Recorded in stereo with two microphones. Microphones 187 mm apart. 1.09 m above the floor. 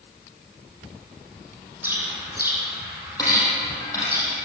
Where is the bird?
10° right (ahead or behind), 9 m.